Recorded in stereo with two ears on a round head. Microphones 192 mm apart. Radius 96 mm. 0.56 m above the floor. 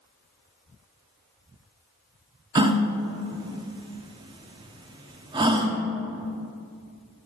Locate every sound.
2.5 s a gasp: 20° right (ahead or behind), 0.5 m